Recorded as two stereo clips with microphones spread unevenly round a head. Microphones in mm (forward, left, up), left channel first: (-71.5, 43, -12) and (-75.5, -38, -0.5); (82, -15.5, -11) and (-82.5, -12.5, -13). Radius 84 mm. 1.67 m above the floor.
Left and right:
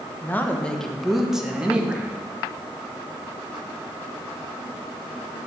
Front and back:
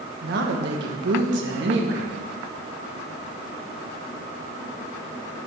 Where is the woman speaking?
155° left, 1.3 m; by 2.2 s 160° right, 2 m.